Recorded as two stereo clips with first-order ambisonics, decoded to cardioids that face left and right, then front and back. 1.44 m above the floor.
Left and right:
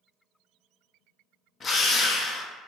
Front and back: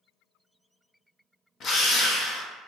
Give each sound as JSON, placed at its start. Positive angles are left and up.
{"t": 1.6, "sound": "a drill", "azimuth_deg": 30, "distance_m": 0.6}